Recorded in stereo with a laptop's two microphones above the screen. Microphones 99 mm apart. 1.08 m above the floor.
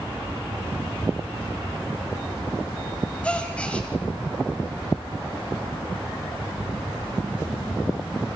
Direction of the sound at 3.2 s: 10° left (ahead or behind).